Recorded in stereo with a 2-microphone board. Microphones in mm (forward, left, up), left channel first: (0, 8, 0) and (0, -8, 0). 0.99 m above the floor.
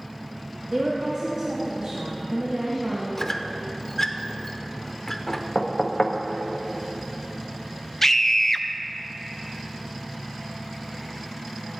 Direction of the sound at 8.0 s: 20° left (ahead or behind).